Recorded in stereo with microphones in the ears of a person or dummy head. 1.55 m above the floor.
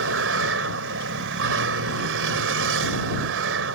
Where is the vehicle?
75° right (ahead or behind).